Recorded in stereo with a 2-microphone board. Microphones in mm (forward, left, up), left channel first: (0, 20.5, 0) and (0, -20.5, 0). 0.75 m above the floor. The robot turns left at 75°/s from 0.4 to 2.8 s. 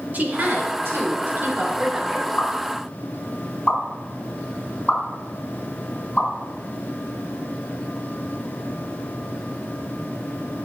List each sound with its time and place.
0.1 s a woman speaking: 50° right, 3 m; by 2.3 s 170° left, 3 m
2.4 s a pop: 70° left (ahead or behind), 5 m; by 6.3 s 35° left (ahead or behind), 5 m